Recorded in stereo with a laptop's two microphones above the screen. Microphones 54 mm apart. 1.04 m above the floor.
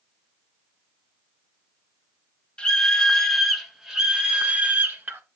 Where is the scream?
15° left (ahead or behind), 1.7 m; by 5.2 s 35° right (ahead or behind), 1.8 m.